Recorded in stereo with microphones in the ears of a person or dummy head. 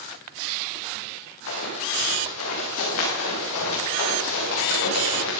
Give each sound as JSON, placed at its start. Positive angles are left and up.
{"t": 1.5, "sound": "running footsteps", "side_deg": 80, "distance_m": 8.0}